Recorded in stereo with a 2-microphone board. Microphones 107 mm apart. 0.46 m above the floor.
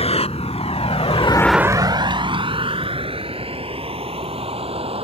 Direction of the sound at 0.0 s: 70° left (ahead or behind).